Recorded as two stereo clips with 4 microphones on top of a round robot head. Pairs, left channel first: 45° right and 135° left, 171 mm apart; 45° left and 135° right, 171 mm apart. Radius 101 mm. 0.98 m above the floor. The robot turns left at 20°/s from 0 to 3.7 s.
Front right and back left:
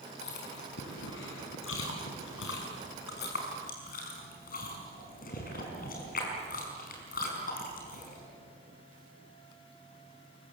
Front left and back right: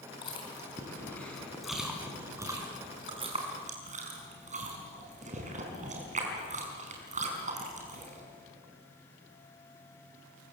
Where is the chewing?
20° right, 5 m; by 8.2 s 90° right, 5 m.